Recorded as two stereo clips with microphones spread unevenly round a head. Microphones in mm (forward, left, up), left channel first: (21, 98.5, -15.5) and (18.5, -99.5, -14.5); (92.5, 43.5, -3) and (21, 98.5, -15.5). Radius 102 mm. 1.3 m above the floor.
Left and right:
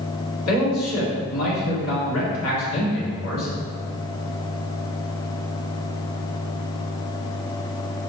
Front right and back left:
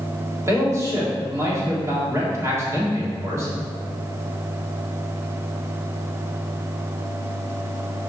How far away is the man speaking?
About 3 m.